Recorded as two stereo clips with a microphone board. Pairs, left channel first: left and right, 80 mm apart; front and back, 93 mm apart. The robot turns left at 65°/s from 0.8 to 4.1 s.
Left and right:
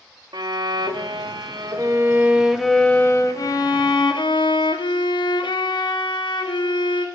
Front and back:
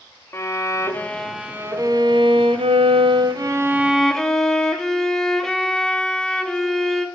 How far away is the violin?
About 0.6 m.